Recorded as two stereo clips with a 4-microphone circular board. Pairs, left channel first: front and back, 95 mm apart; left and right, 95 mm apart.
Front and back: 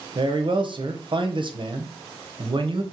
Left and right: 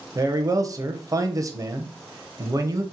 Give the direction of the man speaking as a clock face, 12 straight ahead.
5 o'clock.